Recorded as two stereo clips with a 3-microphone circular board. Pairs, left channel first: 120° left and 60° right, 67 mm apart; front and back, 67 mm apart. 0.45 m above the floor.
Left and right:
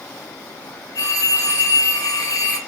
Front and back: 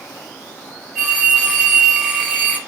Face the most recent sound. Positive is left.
turn(degrees=85)